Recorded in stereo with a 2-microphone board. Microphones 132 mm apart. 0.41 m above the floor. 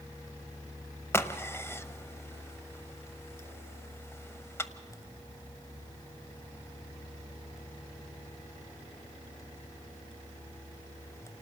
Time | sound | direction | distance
1.1 | a crack | 20° left (ahead or behind) | 0.8 m